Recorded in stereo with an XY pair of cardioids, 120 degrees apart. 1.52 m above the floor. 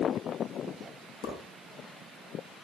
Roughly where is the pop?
Ahead left.